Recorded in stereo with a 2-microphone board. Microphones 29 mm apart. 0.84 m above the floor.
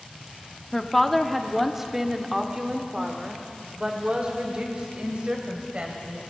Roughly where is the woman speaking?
Centre.